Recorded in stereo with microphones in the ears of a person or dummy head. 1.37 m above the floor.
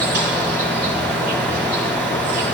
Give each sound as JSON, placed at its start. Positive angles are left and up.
{"t": 0.0, "sound": "an insect", "side_deg": -45, "distance_m": 0.9}